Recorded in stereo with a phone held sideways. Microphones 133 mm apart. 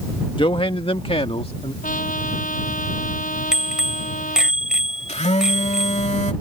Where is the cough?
I don't hear a cough.